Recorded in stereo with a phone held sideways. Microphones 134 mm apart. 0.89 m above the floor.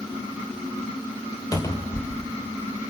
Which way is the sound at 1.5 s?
30° left (ahead or behind).